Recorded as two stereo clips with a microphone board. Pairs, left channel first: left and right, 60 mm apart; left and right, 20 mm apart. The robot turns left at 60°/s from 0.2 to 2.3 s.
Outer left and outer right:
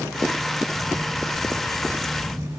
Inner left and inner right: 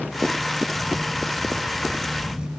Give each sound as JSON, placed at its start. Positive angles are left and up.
{"t": 0.7, "sound": "a camera shutter", "azimuth_deg": -30, "distance_m": 0.9}